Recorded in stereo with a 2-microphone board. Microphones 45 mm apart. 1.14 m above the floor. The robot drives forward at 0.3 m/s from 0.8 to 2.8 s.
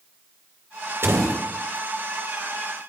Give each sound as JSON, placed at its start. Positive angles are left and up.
{"t": 1.0, "sound": "a door slam", "side_deg": -60, "distance_m": 3.5}